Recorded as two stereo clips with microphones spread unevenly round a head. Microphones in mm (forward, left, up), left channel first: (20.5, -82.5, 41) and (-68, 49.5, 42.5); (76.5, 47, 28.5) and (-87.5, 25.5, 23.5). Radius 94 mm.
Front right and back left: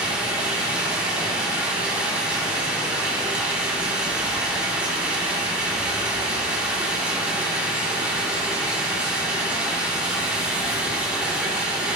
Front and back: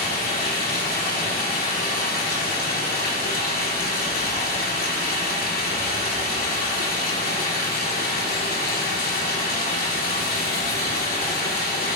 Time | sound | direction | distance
0.0 | running water | 40° left | 3 m